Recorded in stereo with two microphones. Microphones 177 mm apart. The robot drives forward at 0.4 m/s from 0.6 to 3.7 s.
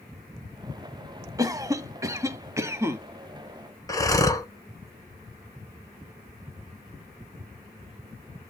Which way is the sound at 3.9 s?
20° left (ahead or behind).